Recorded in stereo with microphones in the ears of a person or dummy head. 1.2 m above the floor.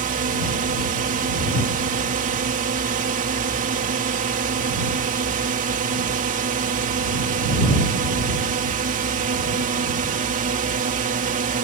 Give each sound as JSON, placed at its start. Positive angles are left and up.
{"t": 0.0, "sound": "a drone", "side_deg": -40}